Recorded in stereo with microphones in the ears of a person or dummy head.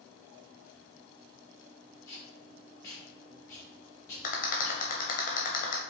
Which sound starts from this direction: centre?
Tape being pulled, at 2.1 s.